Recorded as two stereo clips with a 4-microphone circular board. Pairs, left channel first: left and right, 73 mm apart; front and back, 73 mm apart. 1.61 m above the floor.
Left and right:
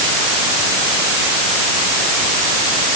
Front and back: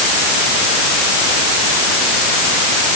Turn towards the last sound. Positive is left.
No sound to turn to.